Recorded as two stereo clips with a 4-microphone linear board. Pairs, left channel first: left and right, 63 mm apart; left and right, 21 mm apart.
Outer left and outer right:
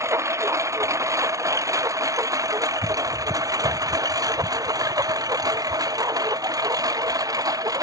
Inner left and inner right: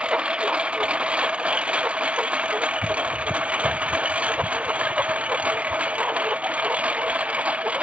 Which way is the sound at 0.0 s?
50° right (ahead or behind).